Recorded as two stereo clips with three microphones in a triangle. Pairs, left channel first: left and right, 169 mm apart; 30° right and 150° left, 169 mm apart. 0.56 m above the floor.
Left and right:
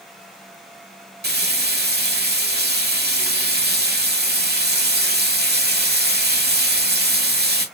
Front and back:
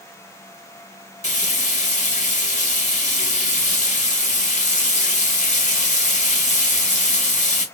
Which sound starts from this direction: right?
Frying, at 1.2 s.